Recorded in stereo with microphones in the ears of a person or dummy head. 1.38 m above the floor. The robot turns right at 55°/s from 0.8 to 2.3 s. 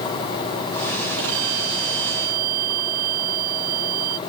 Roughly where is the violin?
Behind right.